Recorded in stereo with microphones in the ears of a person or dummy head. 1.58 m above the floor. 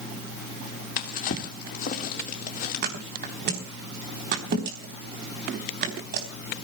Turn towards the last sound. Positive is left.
turn(degrees=-55)  # may be behind; listen again after turning